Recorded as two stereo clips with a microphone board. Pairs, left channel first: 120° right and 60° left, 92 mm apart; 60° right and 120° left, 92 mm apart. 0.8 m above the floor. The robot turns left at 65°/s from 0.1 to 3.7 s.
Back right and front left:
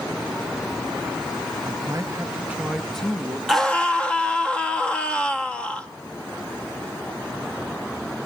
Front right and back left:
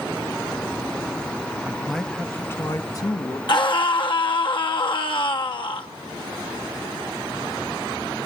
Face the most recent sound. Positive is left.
turn(degrees=-45)